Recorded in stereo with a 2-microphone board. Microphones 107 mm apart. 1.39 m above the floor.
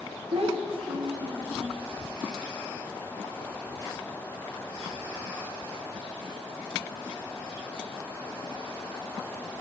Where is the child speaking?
60° right (ahead or behind), 1.0 m; by 1.8 s 20° right (ahead or behind), 1.6 m.